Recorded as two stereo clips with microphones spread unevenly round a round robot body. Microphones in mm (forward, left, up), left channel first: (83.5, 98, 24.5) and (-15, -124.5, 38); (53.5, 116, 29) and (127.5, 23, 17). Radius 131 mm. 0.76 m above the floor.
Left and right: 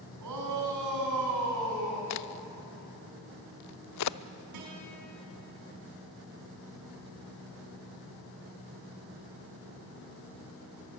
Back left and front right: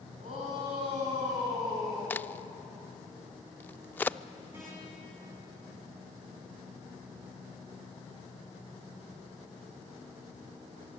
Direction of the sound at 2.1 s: 55° left.